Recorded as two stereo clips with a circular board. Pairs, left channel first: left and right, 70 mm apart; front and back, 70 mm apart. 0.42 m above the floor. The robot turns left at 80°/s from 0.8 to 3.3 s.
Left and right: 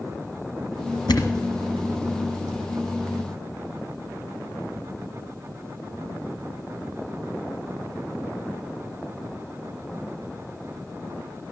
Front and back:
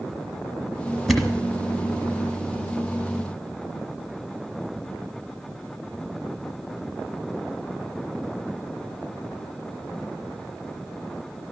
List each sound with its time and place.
1.1 s a thud: 90° left, 1.2 m; by 1.5 s 60° left, 1.2 m